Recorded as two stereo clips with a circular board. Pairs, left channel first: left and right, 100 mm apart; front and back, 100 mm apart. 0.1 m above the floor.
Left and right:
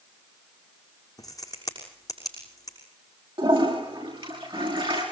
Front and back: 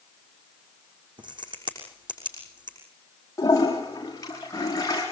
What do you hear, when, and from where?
1.2 s a crack: 145° left, 6.5 m
3.4 s a toilet flushing: 55° right, 9 m